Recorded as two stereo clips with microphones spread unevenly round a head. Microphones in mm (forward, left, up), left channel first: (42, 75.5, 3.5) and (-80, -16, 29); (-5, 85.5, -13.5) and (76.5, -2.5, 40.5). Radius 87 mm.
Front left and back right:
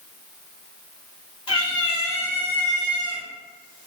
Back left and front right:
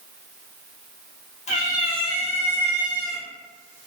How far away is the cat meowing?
About 1.3 m.